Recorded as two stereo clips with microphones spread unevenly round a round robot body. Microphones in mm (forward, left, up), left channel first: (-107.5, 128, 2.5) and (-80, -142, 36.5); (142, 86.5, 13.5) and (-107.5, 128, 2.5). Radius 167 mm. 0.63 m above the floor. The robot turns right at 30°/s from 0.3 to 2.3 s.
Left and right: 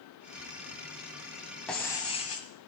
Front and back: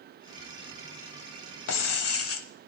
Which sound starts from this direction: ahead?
Breaking glass, at 1.7 s.